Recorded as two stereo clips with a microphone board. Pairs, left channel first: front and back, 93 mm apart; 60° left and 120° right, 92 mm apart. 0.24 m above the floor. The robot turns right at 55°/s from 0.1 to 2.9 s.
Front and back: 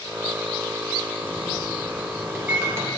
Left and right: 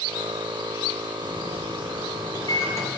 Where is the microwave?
35° left, 3 m; by 2.9 s 125° left, 3 m.